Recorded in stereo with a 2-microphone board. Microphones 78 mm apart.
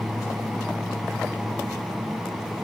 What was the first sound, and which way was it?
Only background noise.